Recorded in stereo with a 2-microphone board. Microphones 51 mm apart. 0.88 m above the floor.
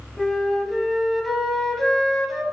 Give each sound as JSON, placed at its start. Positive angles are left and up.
{"t": 0.2, "sound": "a flute", "side_deg": 0, "distance_m": 0.9}